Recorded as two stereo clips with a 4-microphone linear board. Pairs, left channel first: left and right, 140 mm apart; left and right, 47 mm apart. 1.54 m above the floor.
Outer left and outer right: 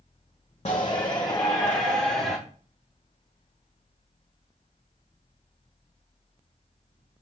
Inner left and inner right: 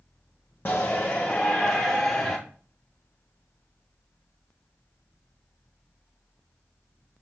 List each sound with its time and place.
0.7 s a shout: 45° left (ahead or behind), 1.0 m; by 2.4 s 5° left (ahead or behind), 1.5 m